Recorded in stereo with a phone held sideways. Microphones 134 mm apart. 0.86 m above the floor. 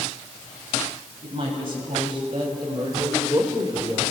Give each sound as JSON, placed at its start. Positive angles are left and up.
{"t": 1.2, "sound": "a woman speaking", "side_deg": -40, "distance_m": 6.5}